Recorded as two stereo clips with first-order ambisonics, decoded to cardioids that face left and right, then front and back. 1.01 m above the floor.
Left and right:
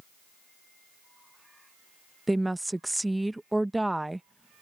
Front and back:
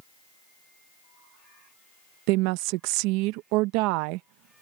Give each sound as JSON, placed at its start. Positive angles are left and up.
{"t": 2.3, "sound": "a woman speaking", "azimuth_deg": -175}